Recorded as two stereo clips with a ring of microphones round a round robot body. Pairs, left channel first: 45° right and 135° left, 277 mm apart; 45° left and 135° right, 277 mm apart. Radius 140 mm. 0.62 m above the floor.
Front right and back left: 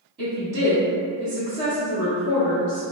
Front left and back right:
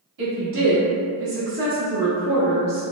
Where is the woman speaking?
155° right, 1.1 m; by 2.8 s 65° right, 1.0 m.